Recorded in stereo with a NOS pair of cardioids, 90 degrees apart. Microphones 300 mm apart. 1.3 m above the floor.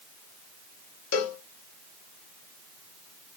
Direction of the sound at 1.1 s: 60° left.